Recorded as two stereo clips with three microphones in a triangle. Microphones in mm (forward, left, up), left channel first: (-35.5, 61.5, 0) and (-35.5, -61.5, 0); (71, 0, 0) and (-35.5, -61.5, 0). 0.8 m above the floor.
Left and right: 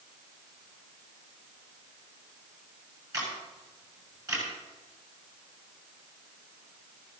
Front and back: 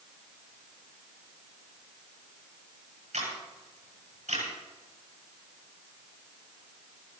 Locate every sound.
3.1 s a camera shutter: 150° right, 9.5 m